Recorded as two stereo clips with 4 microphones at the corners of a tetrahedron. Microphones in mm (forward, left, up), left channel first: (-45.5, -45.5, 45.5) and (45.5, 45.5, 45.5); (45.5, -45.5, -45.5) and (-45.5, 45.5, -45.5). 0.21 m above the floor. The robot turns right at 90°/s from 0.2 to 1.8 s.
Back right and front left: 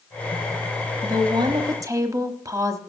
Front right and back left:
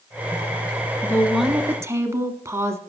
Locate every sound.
1.0 s a woman speaking: 15° left, 1.2 m; by 2.8 s 85° left, 1.2 m